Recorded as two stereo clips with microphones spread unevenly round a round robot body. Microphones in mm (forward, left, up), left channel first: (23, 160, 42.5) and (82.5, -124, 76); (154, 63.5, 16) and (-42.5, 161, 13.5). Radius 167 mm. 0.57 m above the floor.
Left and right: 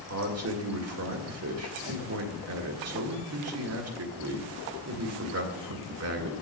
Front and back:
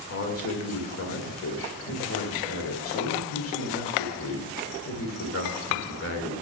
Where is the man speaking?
40° right, 2.0 m.